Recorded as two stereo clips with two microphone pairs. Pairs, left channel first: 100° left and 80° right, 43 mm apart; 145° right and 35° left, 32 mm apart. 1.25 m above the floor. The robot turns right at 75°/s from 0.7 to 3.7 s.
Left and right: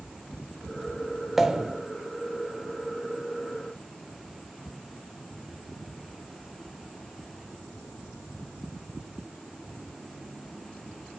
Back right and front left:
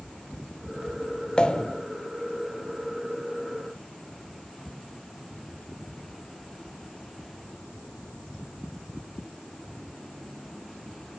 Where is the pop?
145° right, 0.9 m; by 1.8 s 110° right, 0.9 m.